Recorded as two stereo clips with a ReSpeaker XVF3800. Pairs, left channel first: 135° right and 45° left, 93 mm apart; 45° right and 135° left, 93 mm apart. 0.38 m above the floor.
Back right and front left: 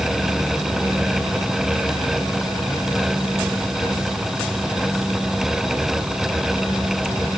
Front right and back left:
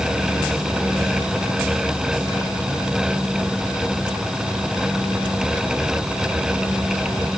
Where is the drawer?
No drawer in this recording.